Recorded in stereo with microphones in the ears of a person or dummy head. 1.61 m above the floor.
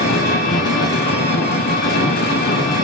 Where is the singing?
I don't hear singing.